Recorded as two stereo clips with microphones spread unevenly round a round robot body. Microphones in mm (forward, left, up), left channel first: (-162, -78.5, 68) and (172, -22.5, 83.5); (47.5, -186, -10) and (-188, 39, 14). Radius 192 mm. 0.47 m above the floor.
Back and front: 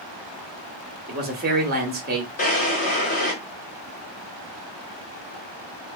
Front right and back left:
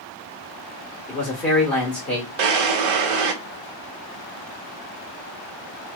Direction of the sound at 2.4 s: 125° left.